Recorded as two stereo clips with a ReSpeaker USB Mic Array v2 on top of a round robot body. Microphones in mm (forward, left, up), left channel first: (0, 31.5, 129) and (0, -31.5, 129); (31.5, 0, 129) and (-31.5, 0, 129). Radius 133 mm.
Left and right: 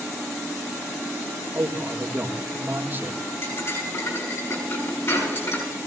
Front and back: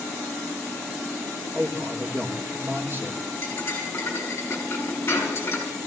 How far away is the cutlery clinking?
About 6 m.